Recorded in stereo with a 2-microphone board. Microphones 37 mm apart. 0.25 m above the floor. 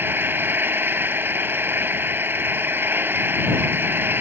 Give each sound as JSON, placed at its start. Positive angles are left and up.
{"t": 0.0, "sound": "an engine running", "side_deg": -70}